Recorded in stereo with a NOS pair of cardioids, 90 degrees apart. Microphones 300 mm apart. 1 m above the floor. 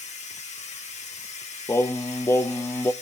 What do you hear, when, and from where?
0.0 s a machine running: 20° left, 1.2 m
1.7 s singing: 10° left, 0.6 m